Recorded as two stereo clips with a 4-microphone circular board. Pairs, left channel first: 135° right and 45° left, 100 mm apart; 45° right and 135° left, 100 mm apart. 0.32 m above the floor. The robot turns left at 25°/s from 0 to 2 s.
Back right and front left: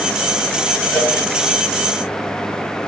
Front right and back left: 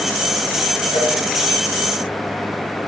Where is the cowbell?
55° right, 5 m; by 1.1 s 60° right, 5 m.